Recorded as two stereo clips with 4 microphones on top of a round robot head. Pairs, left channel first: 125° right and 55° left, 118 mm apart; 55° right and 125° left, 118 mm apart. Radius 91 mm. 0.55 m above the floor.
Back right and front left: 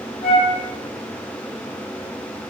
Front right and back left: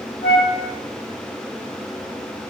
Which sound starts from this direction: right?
A flute, at 0.2 s.